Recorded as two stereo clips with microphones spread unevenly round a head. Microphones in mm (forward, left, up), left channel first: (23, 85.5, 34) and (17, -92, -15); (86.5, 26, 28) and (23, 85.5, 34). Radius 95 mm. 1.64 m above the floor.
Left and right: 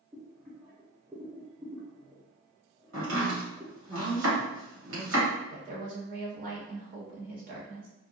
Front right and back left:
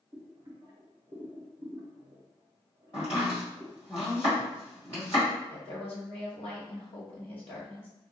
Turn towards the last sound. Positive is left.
turn(degrees=-55)